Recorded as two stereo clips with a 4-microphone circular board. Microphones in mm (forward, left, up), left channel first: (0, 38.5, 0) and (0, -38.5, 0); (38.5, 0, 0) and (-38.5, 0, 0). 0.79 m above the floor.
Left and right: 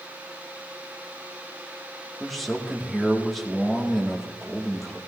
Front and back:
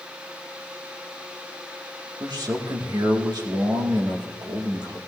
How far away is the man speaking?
About 2.0 m.